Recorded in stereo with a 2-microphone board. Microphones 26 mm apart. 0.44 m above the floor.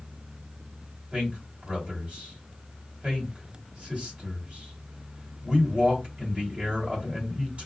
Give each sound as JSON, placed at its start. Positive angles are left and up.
{"t": 1.1, "sound": "a man speaking", "side_deg": -50, "distance_m": 1.9}